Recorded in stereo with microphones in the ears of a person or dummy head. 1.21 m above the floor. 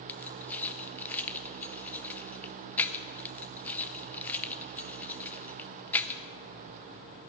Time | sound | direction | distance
0.1 | keys jangling | 10° left (ahead or behind) | 0.7 m